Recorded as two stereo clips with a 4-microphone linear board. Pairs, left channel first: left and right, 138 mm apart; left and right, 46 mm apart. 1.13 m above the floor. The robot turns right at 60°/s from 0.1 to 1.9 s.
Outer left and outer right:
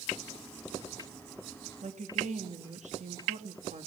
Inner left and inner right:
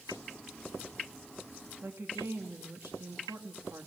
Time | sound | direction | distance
1.8 | a woman speaking | 55° right (ahead or behind) | 1.9 m